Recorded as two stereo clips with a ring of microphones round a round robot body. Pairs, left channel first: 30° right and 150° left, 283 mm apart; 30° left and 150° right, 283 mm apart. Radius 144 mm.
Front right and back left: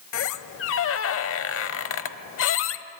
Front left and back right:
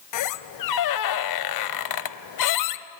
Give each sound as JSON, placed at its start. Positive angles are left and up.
{"t": 0.1, "sound": "a squeak", "azimuth_deg": 15, "distance_m": 0.8}